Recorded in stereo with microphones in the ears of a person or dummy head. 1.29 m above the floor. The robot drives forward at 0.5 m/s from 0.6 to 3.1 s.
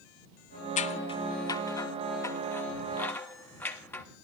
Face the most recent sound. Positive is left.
turn(degrees=10)  # may be behind; listen again after turning